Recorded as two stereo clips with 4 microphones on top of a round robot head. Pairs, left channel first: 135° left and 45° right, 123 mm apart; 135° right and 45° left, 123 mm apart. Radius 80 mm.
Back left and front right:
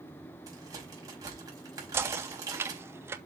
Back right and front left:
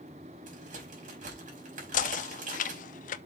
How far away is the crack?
About 5 m.